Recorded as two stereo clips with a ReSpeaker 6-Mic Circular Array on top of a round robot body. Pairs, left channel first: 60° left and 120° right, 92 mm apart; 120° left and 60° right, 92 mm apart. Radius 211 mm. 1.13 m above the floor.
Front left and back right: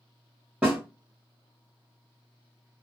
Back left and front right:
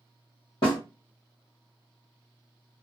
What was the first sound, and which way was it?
A snare drum, 165° left.